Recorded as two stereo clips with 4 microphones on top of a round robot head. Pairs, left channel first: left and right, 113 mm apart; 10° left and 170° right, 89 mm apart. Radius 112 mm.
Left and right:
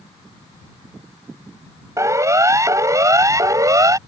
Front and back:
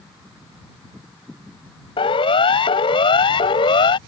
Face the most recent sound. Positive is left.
turn(degrees=-30)